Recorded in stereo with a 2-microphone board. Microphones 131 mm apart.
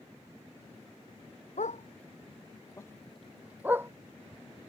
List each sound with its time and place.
1.6 s a dog barking: 80° left; by 3.9 s 20° right (ahead or behind)